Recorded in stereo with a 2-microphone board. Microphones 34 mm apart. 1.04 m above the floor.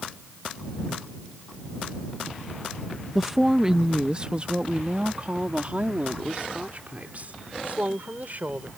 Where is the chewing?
No chewing in this recording.